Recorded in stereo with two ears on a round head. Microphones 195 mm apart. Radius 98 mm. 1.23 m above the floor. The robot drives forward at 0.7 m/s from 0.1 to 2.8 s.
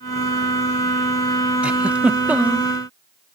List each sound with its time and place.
1.6 s a giggle: 5° right (ahead or behind); by 2.7 s 10° right (ahead or behind)